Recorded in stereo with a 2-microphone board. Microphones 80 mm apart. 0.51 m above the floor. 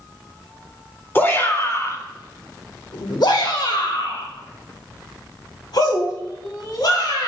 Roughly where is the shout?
Left.